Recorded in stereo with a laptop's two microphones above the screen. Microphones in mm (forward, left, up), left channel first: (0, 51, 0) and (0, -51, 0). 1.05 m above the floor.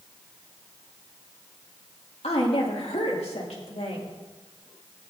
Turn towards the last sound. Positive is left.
turn(degrees=80)